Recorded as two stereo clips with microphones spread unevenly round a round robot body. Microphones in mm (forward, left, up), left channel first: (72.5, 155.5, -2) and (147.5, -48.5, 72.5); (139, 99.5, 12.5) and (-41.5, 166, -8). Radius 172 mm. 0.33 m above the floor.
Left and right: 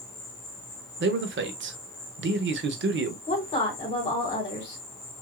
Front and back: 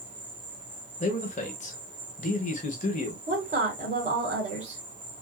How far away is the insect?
About 1.9 m.